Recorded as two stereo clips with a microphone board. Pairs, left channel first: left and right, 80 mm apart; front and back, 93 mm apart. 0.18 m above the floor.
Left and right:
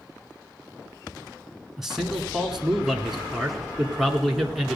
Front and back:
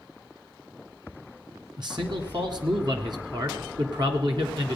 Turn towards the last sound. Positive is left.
turn(degrees=-175)